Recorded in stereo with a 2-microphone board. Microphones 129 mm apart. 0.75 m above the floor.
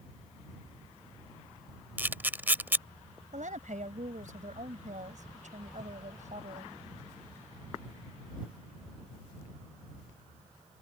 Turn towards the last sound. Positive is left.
turn(degrees=-70)  # may be behind; listen again after turning